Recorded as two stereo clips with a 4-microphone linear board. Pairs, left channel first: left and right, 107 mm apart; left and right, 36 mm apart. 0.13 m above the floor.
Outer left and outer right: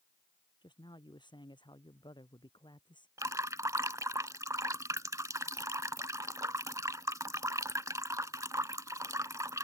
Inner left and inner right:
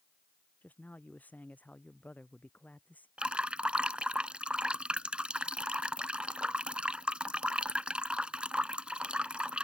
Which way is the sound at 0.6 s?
45° left (ahead or behind).